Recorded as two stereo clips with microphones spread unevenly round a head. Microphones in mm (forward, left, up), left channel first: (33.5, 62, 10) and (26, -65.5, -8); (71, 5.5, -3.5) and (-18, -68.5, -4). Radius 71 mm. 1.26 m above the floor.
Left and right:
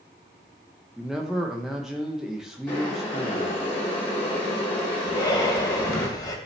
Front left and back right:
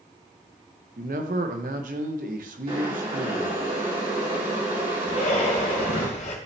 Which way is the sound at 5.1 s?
35° left.